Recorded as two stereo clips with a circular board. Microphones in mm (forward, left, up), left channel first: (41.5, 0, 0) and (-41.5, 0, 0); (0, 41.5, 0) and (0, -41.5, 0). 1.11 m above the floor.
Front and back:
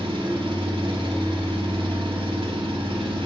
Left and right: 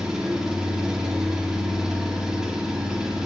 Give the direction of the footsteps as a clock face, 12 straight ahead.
No footsteps in this recording.